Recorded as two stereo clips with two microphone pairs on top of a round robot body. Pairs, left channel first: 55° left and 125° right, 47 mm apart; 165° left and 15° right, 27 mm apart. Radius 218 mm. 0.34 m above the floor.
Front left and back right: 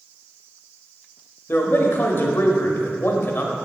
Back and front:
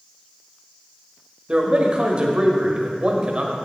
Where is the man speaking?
25° left, 1.3 m.